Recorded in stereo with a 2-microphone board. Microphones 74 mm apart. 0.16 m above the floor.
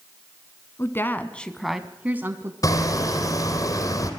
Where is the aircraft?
No aircraft in this recording.